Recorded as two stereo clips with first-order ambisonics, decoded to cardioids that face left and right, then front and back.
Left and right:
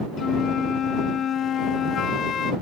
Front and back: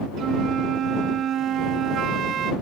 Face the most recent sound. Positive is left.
turn(degrees=140)